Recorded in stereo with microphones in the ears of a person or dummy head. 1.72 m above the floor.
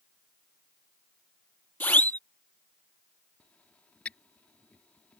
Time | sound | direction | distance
1.8 | a siren | 15° left (ahead or behind) | ?
3.4 | a squeak | 5° left (ahead or behind) | ?